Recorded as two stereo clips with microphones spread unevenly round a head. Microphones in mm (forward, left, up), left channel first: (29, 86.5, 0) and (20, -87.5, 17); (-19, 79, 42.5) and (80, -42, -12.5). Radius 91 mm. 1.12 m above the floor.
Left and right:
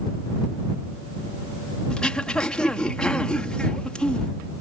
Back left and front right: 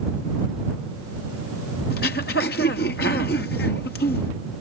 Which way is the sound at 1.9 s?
170° left.